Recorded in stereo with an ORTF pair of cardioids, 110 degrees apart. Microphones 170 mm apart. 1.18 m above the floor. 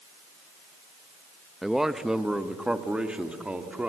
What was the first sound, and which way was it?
A man speaking, straight ahead.